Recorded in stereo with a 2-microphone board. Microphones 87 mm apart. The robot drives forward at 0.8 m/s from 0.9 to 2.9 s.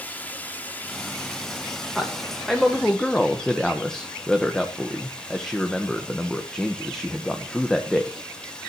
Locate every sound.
0.0 s running water: 20° left (ahead or behind), 1.7 m; by 8.7 s 10° left (ahead or behind), 3 m
1.9 s a man speaking: 5° left (ahead or behind), 2 m